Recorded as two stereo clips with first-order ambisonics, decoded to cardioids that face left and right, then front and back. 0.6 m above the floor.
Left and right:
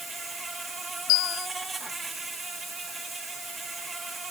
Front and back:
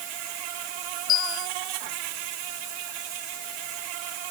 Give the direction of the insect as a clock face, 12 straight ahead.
6 o'clock.